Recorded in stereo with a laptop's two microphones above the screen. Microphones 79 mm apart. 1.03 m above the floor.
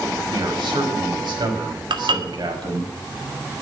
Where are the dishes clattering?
75° right (ahead or behind), 1.7 m.